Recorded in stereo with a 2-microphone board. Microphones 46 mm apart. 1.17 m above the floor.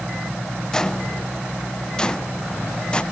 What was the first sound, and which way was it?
Footsteps, 15° left (ahead or behind).